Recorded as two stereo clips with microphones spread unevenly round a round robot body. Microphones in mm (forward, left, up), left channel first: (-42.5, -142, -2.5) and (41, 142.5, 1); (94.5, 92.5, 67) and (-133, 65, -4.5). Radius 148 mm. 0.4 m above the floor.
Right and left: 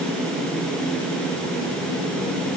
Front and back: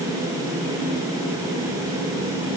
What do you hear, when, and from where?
Only background noise.